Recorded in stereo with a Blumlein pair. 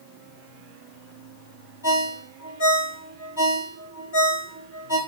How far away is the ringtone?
About 2 m.